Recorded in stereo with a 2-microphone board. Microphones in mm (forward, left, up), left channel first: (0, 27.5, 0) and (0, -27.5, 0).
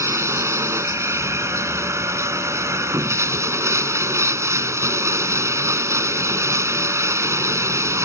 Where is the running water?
65° right (ahead or behind).